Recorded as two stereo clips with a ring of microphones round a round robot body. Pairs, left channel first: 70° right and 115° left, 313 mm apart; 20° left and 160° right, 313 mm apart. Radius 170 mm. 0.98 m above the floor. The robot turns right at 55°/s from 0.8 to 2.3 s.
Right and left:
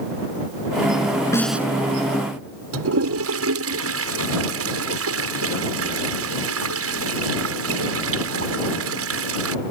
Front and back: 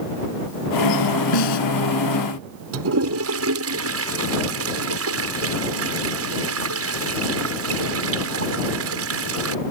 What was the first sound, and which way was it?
A snare drum, 15° left.